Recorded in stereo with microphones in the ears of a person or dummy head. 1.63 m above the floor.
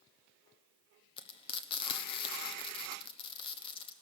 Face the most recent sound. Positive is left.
turn(degrees=35)  # may be behind; listen again after turning